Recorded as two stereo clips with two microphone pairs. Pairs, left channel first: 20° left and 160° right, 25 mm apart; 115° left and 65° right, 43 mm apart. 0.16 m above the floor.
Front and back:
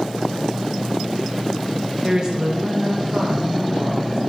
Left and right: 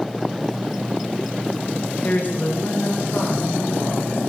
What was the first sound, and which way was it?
A woman speaking, 145° left.